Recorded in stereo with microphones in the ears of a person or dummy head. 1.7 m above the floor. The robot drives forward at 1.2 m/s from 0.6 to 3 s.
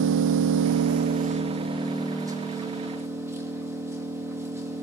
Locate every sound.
0.0 s an engine running: 65° right (ahead or behind), 0.7 m; by 4.8 s 15° right (ahead or behind), 3 m